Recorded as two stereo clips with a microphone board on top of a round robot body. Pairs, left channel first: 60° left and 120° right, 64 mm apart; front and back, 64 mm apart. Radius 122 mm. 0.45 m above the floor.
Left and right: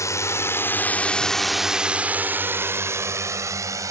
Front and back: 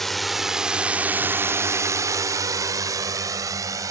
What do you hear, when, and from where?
0.0 s a drone: 85° left; by 3.9 s 150° right